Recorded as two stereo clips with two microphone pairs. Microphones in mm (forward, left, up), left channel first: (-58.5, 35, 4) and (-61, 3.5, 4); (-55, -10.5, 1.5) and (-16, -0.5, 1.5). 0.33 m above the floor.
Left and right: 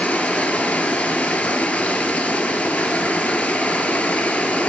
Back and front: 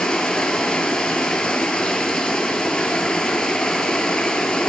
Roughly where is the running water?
Behind left.